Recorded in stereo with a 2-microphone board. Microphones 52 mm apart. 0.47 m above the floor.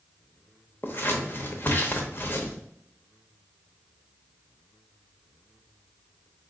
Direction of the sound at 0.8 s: 40° left (ahead or behind).